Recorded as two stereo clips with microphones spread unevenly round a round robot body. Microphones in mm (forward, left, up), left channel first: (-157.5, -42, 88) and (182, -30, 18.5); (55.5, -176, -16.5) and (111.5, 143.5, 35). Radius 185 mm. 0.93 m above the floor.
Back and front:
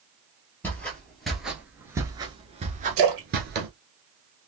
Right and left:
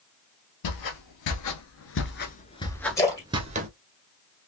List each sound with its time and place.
0.6 s footsteps: 105° right, 1.4 m; by 3.7 s 65° left, 1.0 m
3.0 s a splash: 15° right, 2 m